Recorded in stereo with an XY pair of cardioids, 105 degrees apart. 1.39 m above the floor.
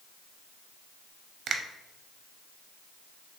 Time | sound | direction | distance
1.5 | a finger snap | 55° right | 0.6 m